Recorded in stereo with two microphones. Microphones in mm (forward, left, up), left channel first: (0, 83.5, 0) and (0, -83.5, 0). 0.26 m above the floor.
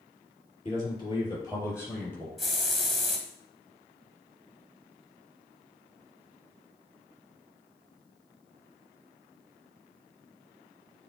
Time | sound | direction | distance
0.7 | a man speaking | 35° left (ahead or behind) | 4.5 m
2.4 | a hiss | centre (ahead or behind) | 1.6 m